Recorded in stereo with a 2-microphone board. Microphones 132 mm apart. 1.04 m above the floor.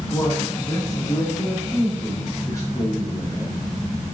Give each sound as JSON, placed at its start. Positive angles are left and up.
{"t": 0.1, "sound": "a man speaking", "side_deg": 25, "distance_m": 3.0}